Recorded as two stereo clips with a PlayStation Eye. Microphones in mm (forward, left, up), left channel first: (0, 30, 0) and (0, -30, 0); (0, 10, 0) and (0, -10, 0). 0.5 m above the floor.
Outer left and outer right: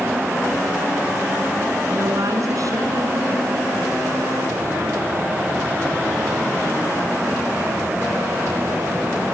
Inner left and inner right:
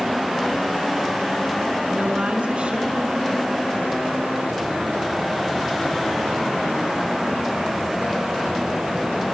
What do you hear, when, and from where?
1.9 s a woman speaking: 75° right (ahead or behind), 5.5 m